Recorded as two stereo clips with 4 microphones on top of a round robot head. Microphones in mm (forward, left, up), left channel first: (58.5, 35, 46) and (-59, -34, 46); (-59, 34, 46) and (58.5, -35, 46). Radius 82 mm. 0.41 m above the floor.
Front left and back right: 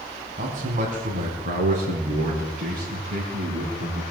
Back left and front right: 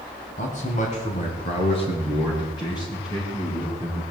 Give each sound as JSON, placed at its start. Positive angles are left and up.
{"t": 0.4, "sound": "a man speaking", "azimuth_deg": 175, "distance_m": 4.5}